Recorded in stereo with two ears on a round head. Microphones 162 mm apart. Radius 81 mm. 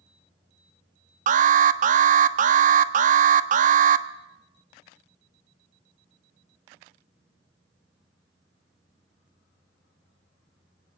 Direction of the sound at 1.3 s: 45° right (ahead or behind).